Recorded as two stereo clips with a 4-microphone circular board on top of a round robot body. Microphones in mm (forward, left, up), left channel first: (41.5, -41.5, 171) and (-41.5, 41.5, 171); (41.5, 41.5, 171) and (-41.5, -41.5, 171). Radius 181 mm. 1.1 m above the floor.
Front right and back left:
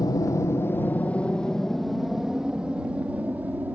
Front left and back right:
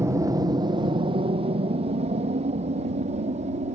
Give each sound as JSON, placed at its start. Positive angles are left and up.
{"t": 0.0, "sound": "an aircraft", "azimuth_deg": -80}